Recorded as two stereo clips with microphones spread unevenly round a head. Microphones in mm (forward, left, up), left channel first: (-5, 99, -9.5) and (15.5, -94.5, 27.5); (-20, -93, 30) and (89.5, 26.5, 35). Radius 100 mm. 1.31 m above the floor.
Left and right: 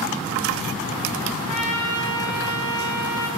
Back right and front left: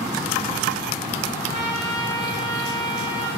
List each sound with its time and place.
1.5 s a trumpet: 100° left, 6.5 m